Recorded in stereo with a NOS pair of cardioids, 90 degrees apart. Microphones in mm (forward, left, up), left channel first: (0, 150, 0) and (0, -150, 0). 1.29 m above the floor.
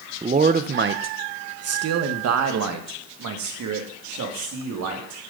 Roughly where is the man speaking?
Ahead.